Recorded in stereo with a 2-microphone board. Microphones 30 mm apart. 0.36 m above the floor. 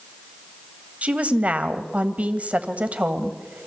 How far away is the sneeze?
No sneeze in this recording.